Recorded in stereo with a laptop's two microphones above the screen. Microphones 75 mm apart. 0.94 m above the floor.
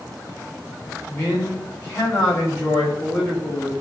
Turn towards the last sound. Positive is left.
turn(degrees=20)  # may be behind; listen again after turning